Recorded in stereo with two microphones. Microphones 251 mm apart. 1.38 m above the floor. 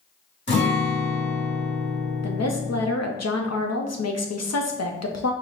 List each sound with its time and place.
0.5 s a guitar: 45° left (ahead or behind), 1.9 m
2.2 s a woman speaking: 85° left, 0.7 m